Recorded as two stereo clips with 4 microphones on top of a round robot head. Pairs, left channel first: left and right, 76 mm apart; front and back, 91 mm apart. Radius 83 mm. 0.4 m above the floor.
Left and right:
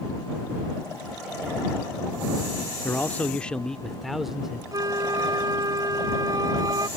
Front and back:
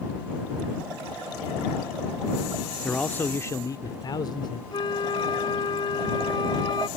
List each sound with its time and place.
2.8 s a man speaking: 70° left; by 4.6 s 10° right
4.7 s a flute: 50° right